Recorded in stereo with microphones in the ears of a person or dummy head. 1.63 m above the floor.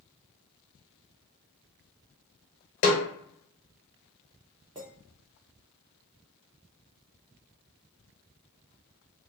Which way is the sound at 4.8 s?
10° right (ahead or behind).